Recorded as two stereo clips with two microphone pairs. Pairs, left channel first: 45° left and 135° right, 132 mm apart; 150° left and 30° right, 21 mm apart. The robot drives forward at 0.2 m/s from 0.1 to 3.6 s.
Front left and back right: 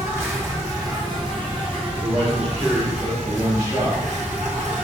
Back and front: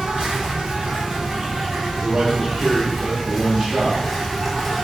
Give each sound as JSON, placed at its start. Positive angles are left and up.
{"t": 0.0, "sound": "an insect", "azimuth_deg": -65, "distance_m": 0.8}
{"t": 2.0, "sound": "a man speaking", "azimuth_deg": -65, "distance_m": 1.7}